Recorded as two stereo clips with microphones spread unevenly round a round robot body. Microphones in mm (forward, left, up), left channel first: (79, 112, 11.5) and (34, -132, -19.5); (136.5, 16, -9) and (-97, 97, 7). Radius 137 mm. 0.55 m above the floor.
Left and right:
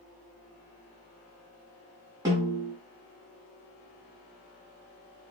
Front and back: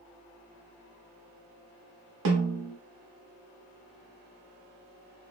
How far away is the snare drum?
About 0.8 m.